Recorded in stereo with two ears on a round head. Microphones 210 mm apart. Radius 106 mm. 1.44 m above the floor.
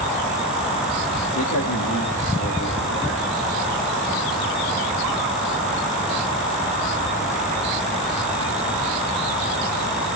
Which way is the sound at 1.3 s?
65° left (ahead or behind).